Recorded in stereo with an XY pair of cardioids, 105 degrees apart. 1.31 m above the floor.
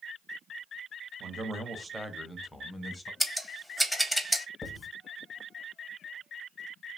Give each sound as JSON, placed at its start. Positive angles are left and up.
{"t": 1.2, "sound": "a man speaking", "azimuth_deg": -55, "distance_m": 0.7}
{"t": 3.2, "sound": "scissors", "azimuth_deg": 0, "distance_m": 0.6}
{"t": 4.6, "sound": "writing", "azimuth_deg": 30, "distance_m": 0.8}